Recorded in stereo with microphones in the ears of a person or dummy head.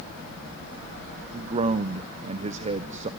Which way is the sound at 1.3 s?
40° right (ahead or behind).